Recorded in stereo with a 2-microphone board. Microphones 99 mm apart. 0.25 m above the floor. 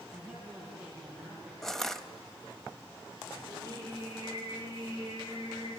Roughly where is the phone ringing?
No phone ringing in this recording.